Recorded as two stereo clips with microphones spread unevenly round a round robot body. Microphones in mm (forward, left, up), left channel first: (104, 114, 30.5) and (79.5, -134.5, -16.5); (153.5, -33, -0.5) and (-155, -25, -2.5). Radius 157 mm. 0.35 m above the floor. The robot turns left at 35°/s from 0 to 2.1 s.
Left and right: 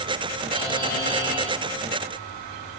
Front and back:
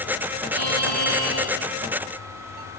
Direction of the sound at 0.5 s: 160° left.